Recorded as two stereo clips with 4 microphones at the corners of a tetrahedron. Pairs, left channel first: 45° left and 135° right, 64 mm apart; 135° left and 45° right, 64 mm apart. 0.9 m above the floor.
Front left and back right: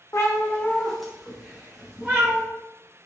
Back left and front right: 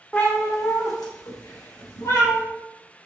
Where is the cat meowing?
70° left, 0.7 m; by 2.4 s 165° left, 1.5 m.